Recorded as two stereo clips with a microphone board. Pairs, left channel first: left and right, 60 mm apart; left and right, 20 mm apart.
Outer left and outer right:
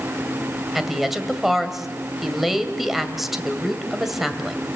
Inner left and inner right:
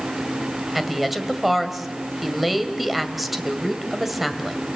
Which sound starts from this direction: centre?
A woman speaking, at 0.8 s.